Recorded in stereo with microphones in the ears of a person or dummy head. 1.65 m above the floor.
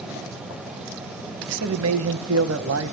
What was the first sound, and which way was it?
A man speaking, 80° right.